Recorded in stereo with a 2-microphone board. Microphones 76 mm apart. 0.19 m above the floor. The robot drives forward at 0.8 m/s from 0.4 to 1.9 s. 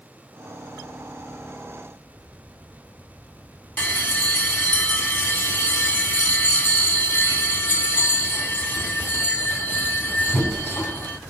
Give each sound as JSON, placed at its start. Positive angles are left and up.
{"t": 3.8, "sound": "a bell", "side_deg": 30, "distance_m": 0.6}